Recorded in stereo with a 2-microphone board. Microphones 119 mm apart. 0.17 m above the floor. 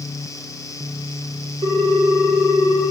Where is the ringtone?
45° right (ahead or behind), 1.7 m.